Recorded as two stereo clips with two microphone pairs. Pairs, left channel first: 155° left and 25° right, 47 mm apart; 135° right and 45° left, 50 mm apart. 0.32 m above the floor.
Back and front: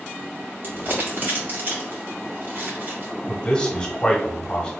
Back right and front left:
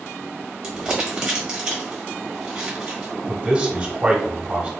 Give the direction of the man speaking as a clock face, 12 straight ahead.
9 o'clock.